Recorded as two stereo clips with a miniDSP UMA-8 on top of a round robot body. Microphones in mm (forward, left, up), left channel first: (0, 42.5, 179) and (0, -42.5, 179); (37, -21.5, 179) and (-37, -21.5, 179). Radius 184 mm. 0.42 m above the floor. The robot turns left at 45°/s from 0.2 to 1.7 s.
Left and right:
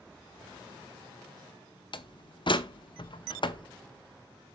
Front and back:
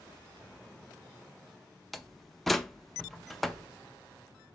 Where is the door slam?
90° left, 0.9 m.